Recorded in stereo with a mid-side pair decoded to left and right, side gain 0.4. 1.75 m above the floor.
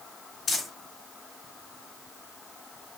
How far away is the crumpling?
About 4.5 m.